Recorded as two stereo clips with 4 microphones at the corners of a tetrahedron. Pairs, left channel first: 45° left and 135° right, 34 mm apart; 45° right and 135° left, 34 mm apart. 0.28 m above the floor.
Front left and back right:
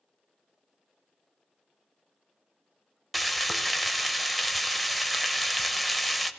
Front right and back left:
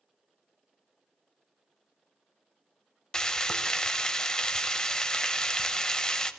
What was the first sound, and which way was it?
Frying, 45° right.